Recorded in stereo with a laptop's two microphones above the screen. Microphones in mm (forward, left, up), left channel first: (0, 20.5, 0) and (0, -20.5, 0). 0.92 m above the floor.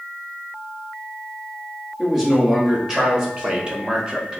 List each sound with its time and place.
2.0 s a man speaking: 10° right (ahead or behind), 1.7 m; by 4.4 s 20° right (ahead or behind), 0.9 m